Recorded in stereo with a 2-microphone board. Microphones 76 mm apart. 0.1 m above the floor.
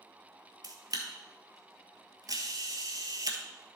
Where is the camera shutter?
55° right (ahead or behind), 1.4 m.